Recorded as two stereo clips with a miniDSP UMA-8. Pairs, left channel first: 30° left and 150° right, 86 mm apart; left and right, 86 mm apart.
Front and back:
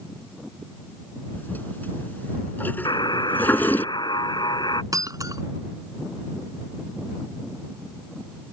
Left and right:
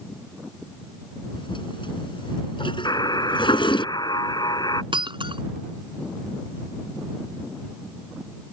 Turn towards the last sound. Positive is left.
turn(degrees=-100)